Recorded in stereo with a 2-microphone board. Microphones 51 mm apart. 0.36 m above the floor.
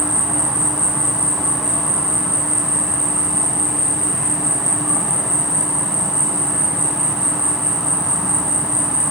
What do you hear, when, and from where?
0.0 s an insect: 15° right (ahead or behind), 1.1 m